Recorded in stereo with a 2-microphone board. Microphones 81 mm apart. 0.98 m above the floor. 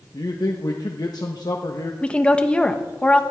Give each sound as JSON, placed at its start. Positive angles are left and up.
{"t": 0.1, "sound": "a man speaking", "side_deg": 60, "distance_m": 1.1}
{"t": 2.0, "sound": "a woman speaking", "side_deg": 15, "distance_m": 1.1}